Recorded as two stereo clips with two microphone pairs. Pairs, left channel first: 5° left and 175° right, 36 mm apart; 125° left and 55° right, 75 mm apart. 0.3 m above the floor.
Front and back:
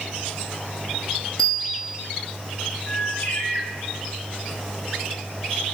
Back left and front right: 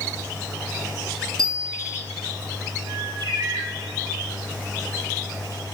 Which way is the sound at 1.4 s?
60° right.